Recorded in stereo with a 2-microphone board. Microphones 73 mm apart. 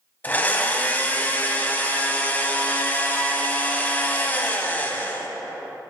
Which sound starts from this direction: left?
A blender, at 0.2 s.